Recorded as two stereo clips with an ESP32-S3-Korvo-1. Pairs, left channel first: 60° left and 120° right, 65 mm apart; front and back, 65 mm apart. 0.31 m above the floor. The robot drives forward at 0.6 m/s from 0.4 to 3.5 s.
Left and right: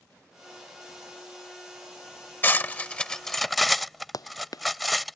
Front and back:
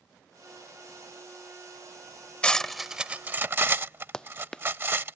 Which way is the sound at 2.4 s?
55° left.